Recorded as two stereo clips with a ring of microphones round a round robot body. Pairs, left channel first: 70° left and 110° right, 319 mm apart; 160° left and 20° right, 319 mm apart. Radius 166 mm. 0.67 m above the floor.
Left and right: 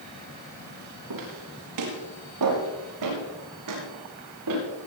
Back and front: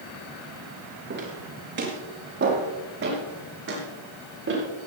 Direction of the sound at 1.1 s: 80° right.